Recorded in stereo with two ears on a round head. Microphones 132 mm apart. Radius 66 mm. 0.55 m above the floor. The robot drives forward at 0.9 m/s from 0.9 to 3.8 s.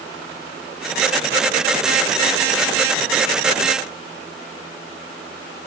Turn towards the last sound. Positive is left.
No sound to turn to.